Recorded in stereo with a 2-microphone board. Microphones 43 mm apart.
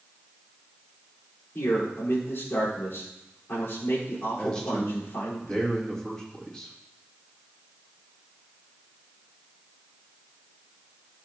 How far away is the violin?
No violin in this recording.